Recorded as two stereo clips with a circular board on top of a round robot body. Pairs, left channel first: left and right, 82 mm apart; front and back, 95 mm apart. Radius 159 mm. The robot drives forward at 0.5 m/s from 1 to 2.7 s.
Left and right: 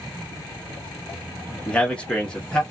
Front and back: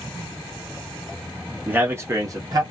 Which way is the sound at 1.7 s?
145° left.